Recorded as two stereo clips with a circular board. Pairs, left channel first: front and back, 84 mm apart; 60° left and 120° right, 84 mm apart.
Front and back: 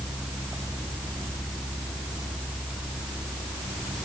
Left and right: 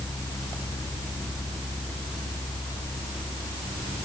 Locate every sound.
Only background noise.